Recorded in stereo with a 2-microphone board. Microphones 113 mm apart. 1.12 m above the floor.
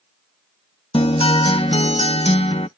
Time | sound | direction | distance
0.9 | a guitar | 60° left (ahead or behind) | ?